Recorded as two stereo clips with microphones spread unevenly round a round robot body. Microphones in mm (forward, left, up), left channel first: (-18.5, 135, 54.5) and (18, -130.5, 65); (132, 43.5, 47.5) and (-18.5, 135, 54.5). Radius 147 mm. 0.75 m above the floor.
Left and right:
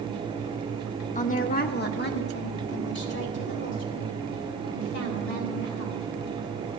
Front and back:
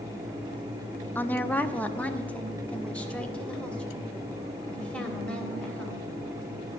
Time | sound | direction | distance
1.1 | a woman speaking | 45° left | 0.8 m